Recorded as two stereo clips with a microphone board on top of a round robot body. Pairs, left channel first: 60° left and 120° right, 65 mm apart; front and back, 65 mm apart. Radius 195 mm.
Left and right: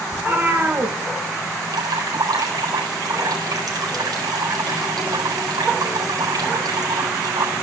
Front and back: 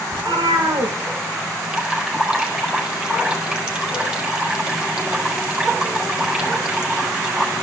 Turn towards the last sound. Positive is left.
turn(degrees=-105)